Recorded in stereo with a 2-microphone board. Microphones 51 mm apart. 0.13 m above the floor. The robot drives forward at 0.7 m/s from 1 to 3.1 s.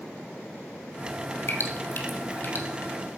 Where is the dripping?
50° left (ahead or behind), 2.5 m; by 2.6 s 35° left (ahead or behind), 3 m.